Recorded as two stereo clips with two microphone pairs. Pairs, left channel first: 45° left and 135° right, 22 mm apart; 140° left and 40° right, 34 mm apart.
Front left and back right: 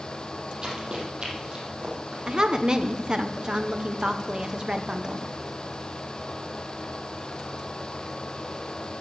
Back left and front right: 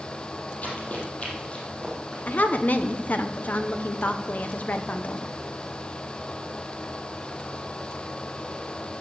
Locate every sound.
0.6 s running footsteps: 175° left, 3.5 m; by 2.2 s 155° right, 5 m
2.3 s a woman speaking: 175° left, 0.9 m